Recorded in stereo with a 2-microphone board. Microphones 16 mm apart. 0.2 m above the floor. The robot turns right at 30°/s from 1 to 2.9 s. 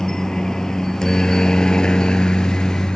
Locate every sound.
0.0 s a helicopter: 45° left (ahead or behind); by 3.0 s 65° left (ahead or behind)